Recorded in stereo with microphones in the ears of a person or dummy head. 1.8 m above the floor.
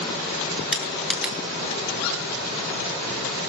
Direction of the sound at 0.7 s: 5° right (ahead or behind).